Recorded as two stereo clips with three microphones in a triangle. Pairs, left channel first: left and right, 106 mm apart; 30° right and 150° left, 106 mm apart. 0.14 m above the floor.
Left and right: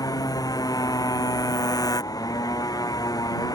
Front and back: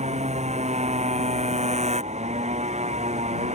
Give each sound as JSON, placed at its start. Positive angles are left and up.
{"t": 0.0, "sound": "a motorcycle", "azimuth_deg": 145}